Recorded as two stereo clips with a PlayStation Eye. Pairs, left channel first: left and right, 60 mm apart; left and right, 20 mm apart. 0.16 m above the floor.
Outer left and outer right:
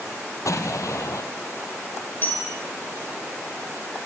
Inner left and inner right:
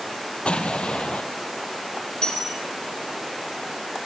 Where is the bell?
40° left (ahead or behind), 6.5 m.